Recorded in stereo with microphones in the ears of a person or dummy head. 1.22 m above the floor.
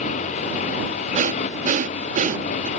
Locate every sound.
0.0 s a motorcycle: 45° left (ahead or behind)
1.1 s breathing: 45° right (ahead or behind)